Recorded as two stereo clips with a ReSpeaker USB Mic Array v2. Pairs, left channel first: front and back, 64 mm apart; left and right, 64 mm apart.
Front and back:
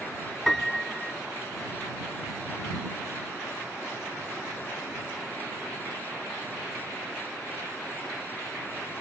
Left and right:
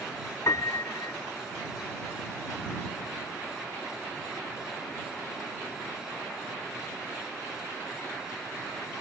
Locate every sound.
0.5 s a piano: 85° left